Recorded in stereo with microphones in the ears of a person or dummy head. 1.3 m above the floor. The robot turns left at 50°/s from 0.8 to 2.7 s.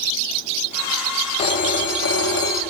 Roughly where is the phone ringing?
Behind left.